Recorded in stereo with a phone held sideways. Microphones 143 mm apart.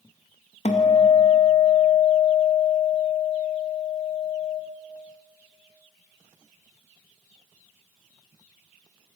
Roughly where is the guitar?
Left.